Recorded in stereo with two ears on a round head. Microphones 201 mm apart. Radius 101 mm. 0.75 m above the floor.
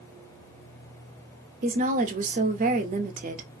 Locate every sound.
1.6 s a woman speaking: 40° right (ahead or behind), 0.6 m